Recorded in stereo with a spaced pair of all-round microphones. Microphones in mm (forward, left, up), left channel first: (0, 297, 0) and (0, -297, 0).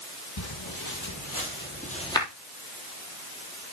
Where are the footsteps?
40° left (ahead or behind), 2.5 m; by 2.3 s 5° left (ahead or behind), 2 m.